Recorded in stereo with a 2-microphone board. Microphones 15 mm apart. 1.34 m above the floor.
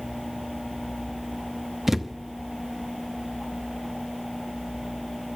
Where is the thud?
15° right (ahead or behind), 0.6 m.